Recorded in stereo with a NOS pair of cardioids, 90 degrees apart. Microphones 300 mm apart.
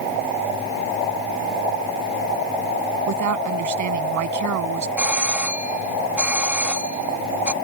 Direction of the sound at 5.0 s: 5° right.